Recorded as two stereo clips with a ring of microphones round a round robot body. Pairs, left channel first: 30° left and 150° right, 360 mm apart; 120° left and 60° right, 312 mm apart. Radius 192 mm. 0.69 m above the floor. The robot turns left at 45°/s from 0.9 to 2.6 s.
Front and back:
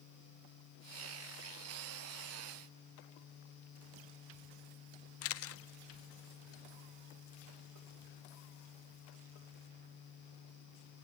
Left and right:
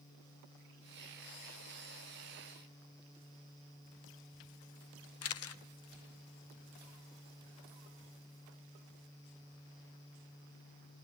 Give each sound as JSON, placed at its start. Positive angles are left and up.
{"t": 5.2, "sound": "a camera shutter", "azimuth_deg": 80, "distance_m": 0.9}